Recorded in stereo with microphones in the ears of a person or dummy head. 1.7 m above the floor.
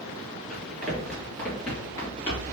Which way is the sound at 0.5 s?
Centre (ahead or behind).